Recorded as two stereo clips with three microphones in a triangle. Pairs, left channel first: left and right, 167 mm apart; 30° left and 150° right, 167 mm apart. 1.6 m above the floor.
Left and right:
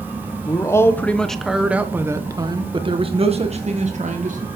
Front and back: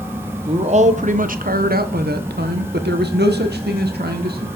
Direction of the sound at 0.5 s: 160° left.